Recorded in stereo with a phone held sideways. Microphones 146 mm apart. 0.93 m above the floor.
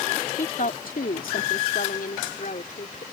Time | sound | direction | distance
0.4 | a woman speaking | 65° left (ahead or behind) | ?